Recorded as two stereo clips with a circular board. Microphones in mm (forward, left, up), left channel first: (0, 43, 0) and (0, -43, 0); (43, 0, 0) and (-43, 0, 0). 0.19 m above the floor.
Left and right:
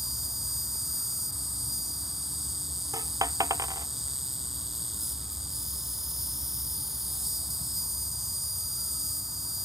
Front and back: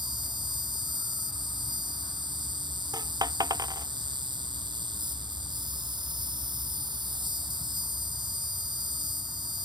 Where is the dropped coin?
140° right.